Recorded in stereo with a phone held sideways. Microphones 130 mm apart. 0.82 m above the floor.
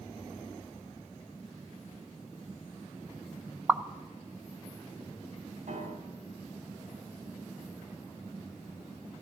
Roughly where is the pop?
Centre.